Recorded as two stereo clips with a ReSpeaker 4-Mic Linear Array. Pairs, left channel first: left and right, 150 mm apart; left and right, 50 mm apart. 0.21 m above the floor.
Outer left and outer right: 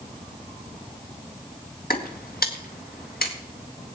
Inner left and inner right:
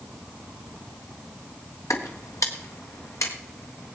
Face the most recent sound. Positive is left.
turn(degrees=85)